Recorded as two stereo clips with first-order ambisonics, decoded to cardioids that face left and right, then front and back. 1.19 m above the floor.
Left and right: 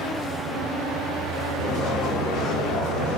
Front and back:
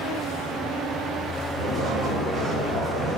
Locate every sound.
1.6 s footsteps: 120° left, 4.5 m; by 3.2 s 125° left, 5.5 m